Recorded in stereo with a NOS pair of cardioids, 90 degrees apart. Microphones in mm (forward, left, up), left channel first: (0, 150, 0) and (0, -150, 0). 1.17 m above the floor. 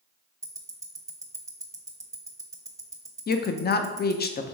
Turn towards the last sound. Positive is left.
turn(degrees=35)